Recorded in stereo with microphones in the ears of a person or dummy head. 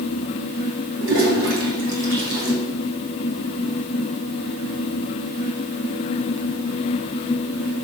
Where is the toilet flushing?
60° right (ahead or behind), 2.5 m.